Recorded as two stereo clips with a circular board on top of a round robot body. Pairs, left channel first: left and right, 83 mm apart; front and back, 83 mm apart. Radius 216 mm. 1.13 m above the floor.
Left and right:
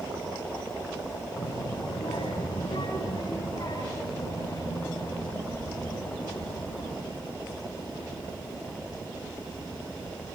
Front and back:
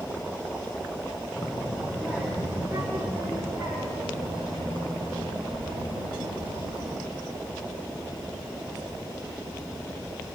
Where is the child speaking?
95° left, 4.5 m; by 7.0 s 150° left, 10 m.